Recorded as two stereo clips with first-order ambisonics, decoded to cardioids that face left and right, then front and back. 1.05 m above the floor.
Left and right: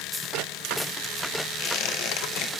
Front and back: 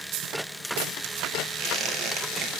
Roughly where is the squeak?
Behind left.